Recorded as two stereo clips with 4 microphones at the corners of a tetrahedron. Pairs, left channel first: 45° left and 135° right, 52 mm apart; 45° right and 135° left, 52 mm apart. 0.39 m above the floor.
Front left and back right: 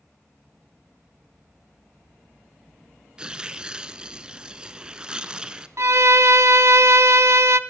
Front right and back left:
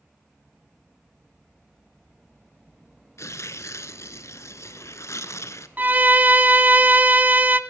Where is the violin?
165° right, 0.5 m.